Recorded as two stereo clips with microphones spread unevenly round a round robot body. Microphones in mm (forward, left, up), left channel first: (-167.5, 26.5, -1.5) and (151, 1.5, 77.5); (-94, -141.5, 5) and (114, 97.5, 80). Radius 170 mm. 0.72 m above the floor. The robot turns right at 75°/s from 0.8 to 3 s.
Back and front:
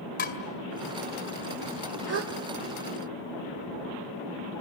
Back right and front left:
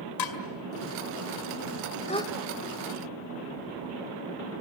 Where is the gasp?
60° right, 1.0 m; by 2.3 s 40° right, 1.0 m.